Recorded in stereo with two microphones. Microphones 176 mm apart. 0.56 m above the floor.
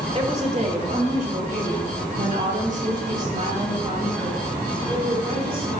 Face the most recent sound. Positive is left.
turn(degrees=-55)  # may be behind; listen again after turning